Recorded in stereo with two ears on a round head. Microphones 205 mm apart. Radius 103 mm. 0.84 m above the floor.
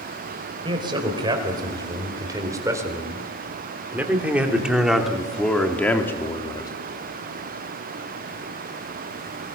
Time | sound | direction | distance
0.7 | a man speaking | 20° right (ahead or behind) | 5 m